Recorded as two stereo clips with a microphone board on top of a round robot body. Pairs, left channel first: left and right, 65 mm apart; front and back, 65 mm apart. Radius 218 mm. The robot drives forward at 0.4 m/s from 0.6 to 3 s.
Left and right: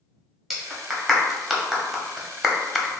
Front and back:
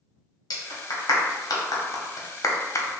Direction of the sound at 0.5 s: Straight ahead.